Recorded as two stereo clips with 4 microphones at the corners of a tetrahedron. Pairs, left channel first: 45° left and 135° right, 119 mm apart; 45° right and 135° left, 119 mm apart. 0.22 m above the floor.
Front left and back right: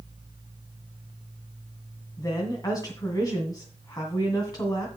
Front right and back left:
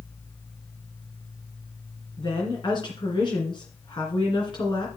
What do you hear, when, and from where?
2.2 s a woman speaking: 5° right, 2.5 m